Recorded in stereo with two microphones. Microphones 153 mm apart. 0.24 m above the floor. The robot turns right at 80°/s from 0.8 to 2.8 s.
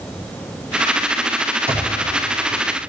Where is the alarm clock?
10° right (ahead or behind), 4 m; by 2.9 s 75° right (ahead or behind), 4 m.